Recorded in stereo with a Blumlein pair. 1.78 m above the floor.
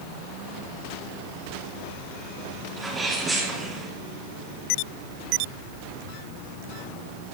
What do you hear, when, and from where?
2.8 s a sneeze: 15° right, 2.5 m